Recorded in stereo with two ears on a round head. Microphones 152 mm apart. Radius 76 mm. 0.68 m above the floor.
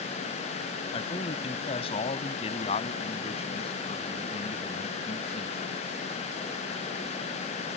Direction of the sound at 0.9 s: 30° left (ahead or behind).